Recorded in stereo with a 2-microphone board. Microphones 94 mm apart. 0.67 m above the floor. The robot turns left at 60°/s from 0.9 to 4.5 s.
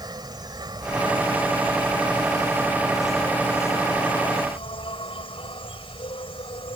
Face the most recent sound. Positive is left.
turn(degrees=95)